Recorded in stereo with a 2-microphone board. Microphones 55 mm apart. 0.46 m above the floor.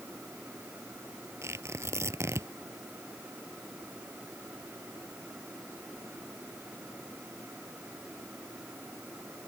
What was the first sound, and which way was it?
Tearing paper, 50° right (ahead or behind).